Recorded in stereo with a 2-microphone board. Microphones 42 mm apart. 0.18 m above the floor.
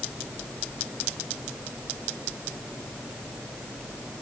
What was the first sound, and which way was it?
Only background noise.